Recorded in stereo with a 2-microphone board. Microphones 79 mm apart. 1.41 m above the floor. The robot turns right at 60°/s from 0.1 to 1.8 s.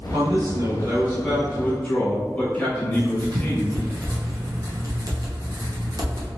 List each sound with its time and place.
0.1 s a man speaking: 80° right, 1.4 m; by 3.9 s 20° left, 1.4 m
2.9 s writing: 50° right (ahead or behind), 0.8 m